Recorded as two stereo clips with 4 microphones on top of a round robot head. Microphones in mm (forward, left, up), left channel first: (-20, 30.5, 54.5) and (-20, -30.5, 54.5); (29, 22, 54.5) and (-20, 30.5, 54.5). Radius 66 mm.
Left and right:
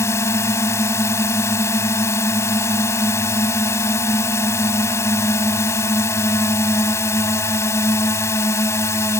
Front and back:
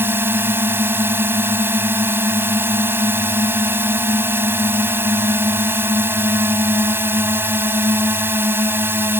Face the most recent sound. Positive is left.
turn(degrees=130)